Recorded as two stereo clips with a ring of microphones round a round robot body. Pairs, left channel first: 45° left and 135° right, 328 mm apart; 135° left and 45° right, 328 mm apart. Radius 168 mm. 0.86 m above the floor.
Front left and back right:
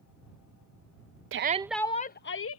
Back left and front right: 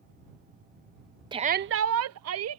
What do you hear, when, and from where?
1.3 s a shout: 115° right; by 2.6 s straight ahead